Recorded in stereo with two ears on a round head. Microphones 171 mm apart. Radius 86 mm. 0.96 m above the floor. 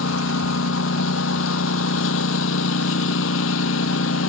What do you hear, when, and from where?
0.0 s a lawn mower: 75° left (ahead or behind)